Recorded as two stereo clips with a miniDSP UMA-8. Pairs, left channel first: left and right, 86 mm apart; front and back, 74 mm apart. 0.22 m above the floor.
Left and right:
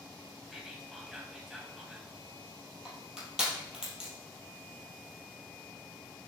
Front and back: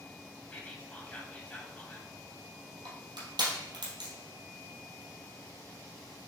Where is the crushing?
175° right, 3 m.